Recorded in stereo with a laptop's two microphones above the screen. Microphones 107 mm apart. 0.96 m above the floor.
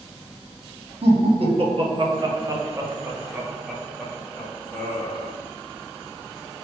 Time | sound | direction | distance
1.0 | laughter | 70° right (ahead or behind) | 1.5 m